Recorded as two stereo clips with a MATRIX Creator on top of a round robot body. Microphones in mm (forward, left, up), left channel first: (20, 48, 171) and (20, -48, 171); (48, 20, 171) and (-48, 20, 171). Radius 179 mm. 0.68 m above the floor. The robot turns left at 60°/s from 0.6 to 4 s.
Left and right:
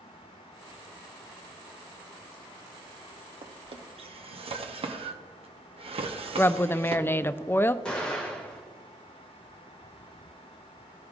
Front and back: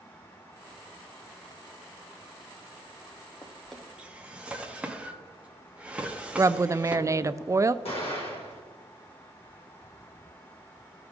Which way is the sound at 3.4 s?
65° right.